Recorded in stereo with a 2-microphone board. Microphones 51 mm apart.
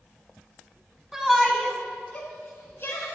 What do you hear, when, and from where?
1.1 s a shout: 10° right (ahead or behind), 1.1 m; by 3.1 s 50° left (ahead or behind), 1.5 m